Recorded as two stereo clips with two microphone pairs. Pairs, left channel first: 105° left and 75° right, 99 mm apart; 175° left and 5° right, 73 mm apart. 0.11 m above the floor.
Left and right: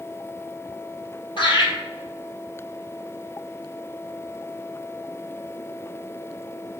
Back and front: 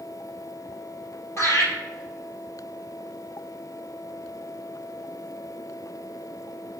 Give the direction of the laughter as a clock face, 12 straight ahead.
8 o'clock.